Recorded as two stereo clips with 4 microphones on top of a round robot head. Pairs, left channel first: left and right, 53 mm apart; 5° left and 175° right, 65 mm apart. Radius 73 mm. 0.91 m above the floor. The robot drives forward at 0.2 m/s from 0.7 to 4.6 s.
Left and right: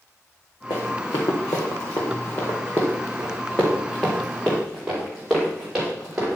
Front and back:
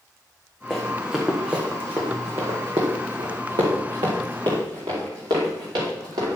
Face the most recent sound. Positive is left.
turn(degrees=-170)